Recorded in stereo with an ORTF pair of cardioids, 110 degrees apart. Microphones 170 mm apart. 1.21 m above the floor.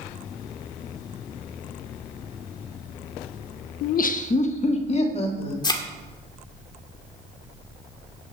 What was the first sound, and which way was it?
Laughter, 70° left.